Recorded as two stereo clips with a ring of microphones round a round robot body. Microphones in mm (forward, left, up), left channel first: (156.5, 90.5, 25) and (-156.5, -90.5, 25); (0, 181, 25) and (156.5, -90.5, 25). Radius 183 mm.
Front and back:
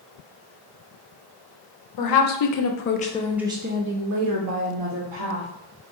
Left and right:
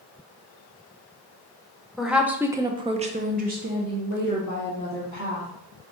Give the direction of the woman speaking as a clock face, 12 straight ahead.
11 o'clock.